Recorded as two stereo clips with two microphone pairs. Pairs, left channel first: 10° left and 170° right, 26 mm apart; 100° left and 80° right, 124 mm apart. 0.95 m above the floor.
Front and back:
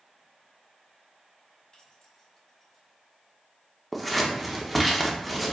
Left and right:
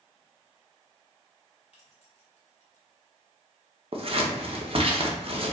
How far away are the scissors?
About 0.6 m.